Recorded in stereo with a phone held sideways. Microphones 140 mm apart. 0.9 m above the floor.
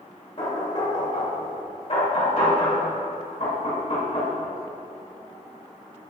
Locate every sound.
0.4 s knocking: 45° left (ahead or behind), 2 m